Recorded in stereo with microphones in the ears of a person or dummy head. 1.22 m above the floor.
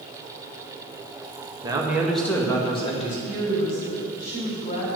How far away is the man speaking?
About 1.7 m.